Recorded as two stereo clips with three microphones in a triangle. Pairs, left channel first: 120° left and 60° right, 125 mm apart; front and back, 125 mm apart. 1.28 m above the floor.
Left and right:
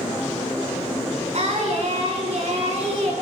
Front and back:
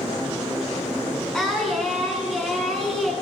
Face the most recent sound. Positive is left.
turn(degrees=-85)